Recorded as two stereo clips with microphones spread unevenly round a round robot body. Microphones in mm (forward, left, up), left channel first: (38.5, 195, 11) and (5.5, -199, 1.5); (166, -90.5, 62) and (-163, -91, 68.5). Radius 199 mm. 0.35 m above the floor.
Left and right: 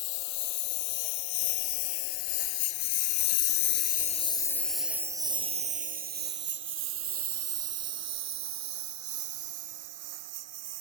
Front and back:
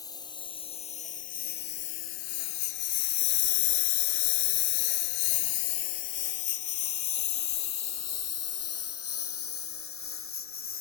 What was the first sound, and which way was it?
A lawn mower, 80° left.